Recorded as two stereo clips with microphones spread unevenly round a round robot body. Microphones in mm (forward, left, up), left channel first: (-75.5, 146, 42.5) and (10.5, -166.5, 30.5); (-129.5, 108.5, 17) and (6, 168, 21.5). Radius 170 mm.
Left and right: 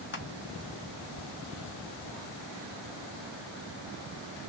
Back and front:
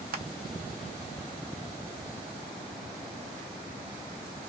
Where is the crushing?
45° left, 0.7 m.